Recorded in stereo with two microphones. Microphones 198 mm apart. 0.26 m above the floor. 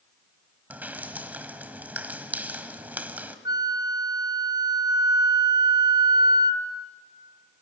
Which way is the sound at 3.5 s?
20° right (ahead or behind).